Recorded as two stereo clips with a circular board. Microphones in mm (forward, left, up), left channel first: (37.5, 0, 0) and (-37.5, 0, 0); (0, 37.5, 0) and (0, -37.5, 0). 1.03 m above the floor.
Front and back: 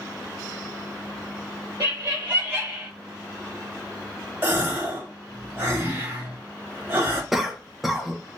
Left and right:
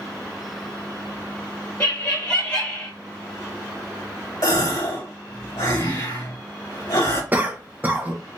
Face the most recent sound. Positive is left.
turn(degrees=-100)